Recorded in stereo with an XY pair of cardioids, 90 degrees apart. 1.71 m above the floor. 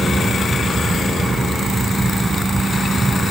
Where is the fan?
20° right, 5.5 m.